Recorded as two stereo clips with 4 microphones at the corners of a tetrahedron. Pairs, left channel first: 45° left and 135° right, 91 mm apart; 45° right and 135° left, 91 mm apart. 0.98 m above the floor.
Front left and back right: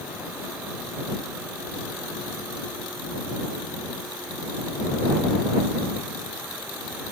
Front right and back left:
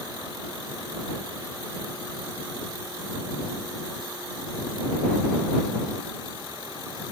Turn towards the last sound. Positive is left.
No sound to turn to.